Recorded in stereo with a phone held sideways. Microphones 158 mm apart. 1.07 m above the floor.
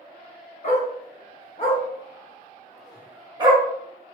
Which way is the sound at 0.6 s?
50° left (ahead or behind).